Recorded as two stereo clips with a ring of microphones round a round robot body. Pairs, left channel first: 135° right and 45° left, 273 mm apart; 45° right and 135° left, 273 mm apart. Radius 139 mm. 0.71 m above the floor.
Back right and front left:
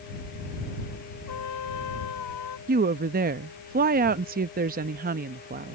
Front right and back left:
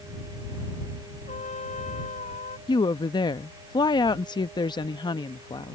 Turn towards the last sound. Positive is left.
turn(degrees=20)